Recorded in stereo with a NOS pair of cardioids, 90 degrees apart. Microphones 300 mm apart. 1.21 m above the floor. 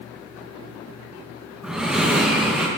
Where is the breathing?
5° right, 1.0 m.